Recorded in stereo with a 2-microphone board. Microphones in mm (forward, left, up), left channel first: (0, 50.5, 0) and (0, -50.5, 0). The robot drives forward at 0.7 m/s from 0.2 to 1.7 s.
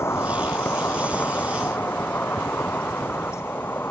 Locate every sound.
0.0 s an insect: 25° left (ahead or behind); by 3.9 s 20° left (ahead or behind)